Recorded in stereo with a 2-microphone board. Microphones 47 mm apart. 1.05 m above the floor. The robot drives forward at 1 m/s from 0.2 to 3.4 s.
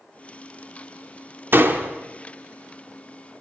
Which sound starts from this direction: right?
A door slam, at 1.5 s.